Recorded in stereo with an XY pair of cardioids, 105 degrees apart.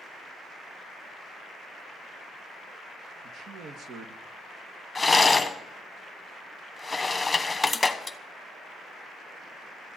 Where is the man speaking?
60° right, 1.4 m.